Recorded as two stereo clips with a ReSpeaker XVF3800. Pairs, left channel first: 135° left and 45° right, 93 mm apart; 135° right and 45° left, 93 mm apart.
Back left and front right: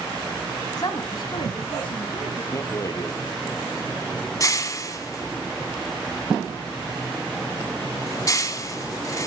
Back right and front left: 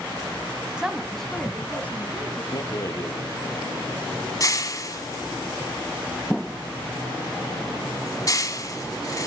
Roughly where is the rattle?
Behind.